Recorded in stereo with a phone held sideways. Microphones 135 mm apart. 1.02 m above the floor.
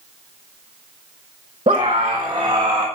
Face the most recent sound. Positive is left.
turn(degrees=-25)  # may be behind; listen again after turning